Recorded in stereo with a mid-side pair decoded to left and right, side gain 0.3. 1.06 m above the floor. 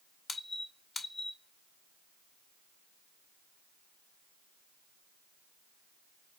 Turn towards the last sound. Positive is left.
turn(degrees=60)